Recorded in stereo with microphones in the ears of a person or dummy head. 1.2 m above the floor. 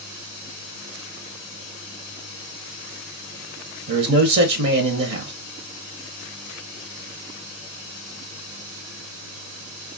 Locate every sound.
3.9 s a man speaking: 60° right (ahead or behind), 0.7 m